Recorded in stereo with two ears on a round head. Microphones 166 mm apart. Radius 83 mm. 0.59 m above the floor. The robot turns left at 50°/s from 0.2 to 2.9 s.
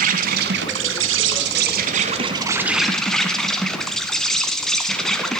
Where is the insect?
50° right, 1.1 m; by 5.4 s 175° left, 1.1 m.